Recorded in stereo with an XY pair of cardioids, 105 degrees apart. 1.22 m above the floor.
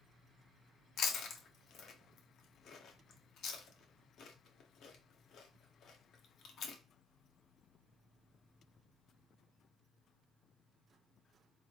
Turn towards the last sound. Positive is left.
turn(degrees=65)